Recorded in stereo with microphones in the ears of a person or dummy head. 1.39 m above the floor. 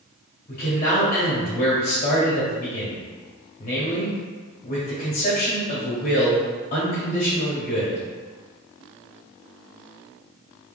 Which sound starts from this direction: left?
A man speaking, at 0.5 s.